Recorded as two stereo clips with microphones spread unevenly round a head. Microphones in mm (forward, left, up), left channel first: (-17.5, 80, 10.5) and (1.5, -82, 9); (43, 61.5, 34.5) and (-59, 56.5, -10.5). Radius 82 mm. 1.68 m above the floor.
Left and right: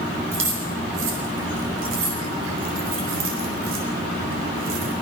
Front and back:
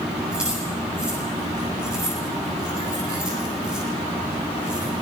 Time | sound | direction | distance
0.3 | keys jangling | 90° right | 7 m